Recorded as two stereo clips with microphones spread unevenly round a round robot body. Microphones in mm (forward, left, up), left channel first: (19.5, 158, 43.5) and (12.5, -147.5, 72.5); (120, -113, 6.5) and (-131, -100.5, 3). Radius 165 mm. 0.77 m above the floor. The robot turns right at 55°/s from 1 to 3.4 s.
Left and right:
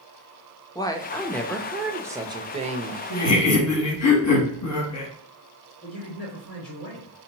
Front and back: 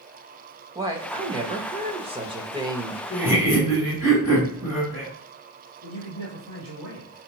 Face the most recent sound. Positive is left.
turn(degrees=145)